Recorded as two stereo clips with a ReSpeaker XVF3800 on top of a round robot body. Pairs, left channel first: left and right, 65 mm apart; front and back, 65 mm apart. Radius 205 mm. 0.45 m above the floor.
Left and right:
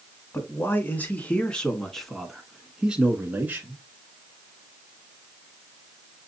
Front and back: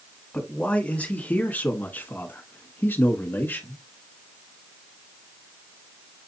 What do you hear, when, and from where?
0.3 s a man speaking: 65° left, 1.7 m; by 3.8 s 45° right, 1.8 m